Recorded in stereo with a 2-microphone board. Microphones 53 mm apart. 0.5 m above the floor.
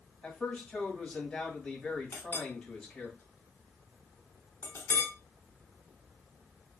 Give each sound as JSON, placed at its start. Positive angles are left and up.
{"t": 0.2, "sound": "a man speaking", "side_deg": 15, "distance_m": 2.0}
{"t": 2.1, "sound": "a clink", "side_deg": 50, "distance_m": 1.0}